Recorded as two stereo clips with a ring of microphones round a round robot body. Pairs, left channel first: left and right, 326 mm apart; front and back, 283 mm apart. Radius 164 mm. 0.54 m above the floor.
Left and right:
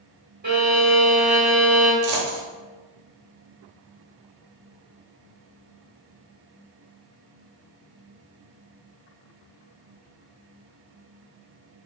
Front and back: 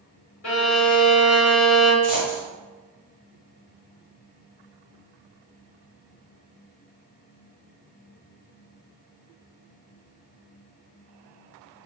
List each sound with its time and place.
0.4 s a violin: 30° right, 1.5 m
2.0 s a dropped coin: 95° right, 1.0 m